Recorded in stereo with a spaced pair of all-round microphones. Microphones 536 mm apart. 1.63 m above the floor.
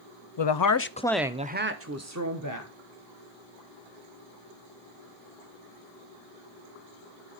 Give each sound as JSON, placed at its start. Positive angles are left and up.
{"t": 0.4, "sound": "a woman speaking", "side_deg": 60, "distance_m": 0.5}